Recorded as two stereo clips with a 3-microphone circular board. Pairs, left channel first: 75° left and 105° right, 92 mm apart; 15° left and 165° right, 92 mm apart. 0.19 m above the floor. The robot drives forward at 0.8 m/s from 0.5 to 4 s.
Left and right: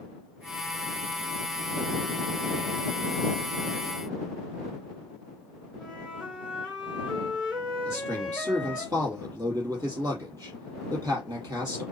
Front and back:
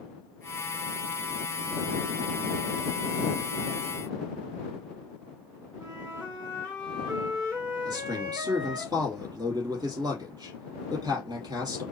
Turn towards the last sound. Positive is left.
turn(degrees=-140)